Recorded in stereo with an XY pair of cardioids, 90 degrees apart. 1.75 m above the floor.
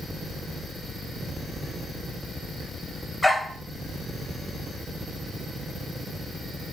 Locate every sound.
3.2 s a dog barking: straight ahead, 5.5 m